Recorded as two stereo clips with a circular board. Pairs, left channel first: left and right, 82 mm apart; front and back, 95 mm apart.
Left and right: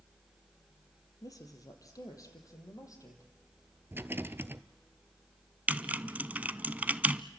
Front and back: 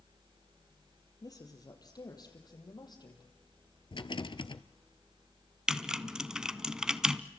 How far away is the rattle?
About 0.7 m.